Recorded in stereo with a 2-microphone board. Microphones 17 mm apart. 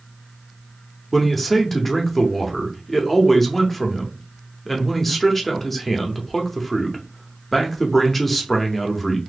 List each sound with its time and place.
1.1 s a man speaking: 10° left (ahead or behind), 0.8 m